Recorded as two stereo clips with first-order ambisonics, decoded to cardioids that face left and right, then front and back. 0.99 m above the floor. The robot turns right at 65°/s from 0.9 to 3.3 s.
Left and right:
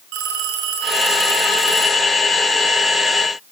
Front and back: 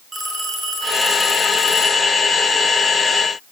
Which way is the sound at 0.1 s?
105° right.